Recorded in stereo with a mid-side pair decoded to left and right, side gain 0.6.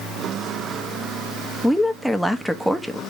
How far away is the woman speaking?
About 1.0 m.